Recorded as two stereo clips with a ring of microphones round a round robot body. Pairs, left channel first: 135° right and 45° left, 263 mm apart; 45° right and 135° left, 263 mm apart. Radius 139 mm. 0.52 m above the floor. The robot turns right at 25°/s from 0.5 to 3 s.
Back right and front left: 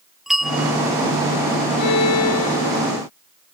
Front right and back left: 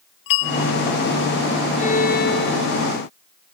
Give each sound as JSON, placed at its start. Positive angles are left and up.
{"t": 0.3, "sound": "a bell", "azimuth_deg": -45}
{"t": 1.8, "sound": "a violin", "azimuth_deg": -110}